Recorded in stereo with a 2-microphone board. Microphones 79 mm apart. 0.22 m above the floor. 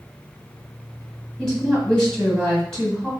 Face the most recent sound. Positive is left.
turn(degrees=5)  # may be behind; listen again after turning